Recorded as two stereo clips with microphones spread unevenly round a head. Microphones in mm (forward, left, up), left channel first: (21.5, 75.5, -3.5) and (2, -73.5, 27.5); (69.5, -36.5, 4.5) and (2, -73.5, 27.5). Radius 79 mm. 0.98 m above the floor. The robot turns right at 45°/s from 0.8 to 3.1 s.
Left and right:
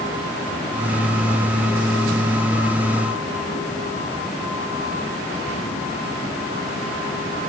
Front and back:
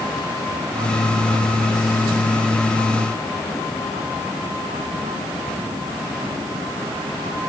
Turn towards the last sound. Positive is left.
No sound to turn to.